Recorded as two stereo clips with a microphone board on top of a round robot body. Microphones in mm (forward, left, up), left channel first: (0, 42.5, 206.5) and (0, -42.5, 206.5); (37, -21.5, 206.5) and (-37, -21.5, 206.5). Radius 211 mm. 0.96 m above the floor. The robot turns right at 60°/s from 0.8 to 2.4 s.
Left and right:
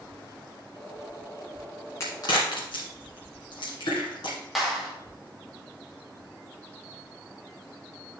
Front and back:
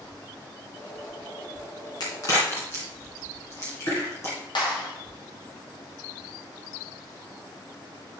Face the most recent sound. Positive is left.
turn(degrees=0)